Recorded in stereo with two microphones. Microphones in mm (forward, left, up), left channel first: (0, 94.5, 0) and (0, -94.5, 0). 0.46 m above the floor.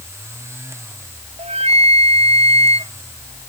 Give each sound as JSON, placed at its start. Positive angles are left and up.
{"t": 1.4, "sound": "a flute", "side_deg": -35}